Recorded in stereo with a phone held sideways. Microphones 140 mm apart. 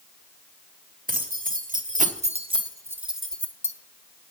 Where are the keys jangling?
85° right, 1.9 m; by 3.7 s 20° left (ahead or behind), 1.4 m.